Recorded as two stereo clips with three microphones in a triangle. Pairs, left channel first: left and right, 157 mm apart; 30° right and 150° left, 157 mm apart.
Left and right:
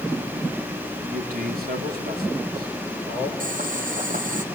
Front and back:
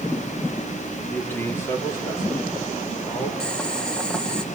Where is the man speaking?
110° right, 3 m; by 3.3 s 100° right, 5.5 m.